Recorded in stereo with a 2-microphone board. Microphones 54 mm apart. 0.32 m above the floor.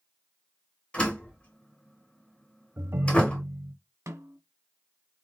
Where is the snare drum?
70° right (ahead or behind), 1.5 m.